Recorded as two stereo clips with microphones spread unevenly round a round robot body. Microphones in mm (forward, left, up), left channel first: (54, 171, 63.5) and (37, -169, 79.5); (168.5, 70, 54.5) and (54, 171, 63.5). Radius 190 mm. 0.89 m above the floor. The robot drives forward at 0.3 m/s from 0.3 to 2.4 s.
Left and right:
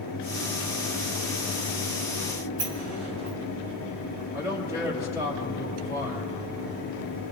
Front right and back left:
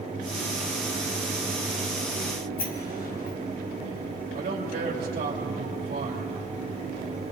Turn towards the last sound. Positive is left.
turn(degrees=-175)